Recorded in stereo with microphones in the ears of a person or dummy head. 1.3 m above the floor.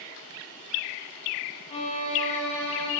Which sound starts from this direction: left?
A violin, at 1.7 s.